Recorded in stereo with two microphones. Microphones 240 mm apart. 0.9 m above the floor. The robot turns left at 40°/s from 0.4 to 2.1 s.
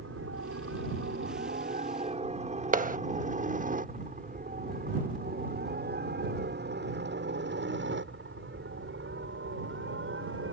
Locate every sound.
0.0 s a helicopter: 65° right (ahead or behind); by 10.5 s 60° right (ahead or behind)
2.7 s a clap: 35° right (ahead or behind)